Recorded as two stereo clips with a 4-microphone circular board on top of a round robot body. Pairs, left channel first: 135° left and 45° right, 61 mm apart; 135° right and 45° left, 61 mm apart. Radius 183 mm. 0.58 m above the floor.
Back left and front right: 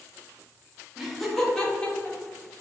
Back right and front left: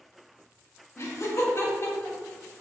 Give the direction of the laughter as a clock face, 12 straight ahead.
4 o'clock.